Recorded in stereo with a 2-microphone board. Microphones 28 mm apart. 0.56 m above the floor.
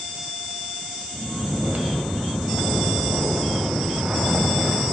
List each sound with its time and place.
1.1 s snoring: 60° right (ahead or behind), 1.0 m